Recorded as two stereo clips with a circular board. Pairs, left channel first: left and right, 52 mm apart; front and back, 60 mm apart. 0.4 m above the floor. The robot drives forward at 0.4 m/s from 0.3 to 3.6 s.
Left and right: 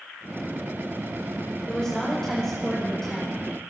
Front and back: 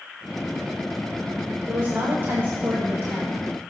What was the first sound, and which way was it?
A woman speaking, 155° left.